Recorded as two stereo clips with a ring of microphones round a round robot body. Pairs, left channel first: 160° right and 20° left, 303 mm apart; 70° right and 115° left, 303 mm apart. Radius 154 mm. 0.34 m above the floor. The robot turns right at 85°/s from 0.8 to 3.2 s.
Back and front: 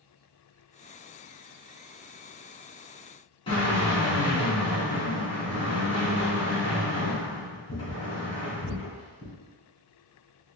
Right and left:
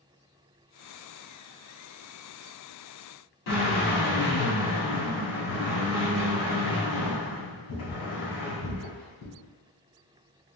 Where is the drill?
85° right, 1.8 m.